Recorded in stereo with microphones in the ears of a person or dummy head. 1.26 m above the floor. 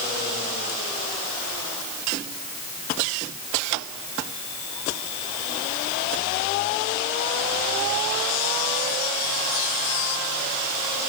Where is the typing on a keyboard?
I don't hear typing on a keyboard.